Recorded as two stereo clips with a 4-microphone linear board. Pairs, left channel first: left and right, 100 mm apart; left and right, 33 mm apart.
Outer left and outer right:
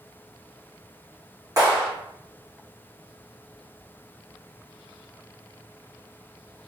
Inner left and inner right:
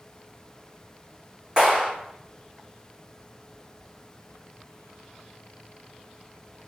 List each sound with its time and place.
1.6 s a clap: 35° right (ahead or behind), 1.6 m